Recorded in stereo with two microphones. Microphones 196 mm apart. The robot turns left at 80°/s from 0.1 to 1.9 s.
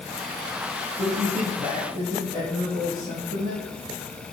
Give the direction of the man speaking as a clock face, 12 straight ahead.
2 o'clock.